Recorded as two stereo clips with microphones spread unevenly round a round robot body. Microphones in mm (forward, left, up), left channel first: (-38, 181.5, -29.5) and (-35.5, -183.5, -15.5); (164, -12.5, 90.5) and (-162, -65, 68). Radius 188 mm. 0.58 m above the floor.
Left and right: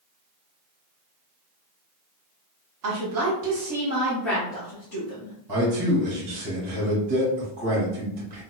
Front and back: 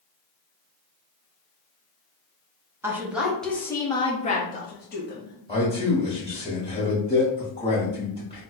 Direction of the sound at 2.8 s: 95° right.